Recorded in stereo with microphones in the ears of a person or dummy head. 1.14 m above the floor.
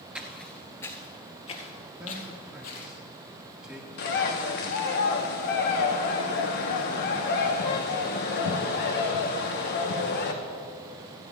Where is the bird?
50° left (ahead or behind), 1.0 m.